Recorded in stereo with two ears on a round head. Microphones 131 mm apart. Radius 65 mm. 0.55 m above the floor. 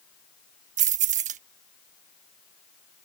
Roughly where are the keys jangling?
Right.